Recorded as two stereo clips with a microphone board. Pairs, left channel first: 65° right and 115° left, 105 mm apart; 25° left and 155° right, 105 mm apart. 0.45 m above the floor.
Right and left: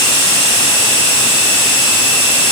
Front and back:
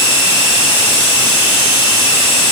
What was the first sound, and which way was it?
Only background noise.